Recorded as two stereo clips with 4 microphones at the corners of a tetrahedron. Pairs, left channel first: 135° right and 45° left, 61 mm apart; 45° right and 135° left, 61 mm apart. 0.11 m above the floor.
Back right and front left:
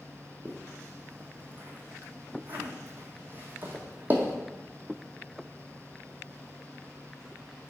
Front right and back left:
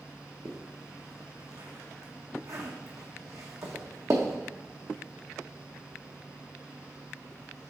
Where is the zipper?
105° left, 1.1 m.